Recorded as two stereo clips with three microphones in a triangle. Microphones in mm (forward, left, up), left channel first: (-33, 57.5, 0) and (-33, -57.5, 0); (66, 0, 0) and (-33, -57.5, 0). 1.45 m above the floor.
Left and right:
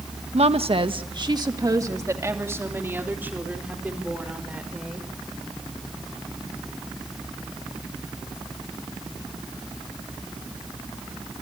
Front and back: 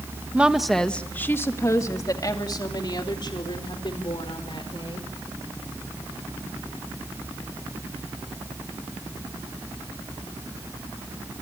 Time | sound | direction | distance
0.3 | a woman speaking | 70° right | 1.4 m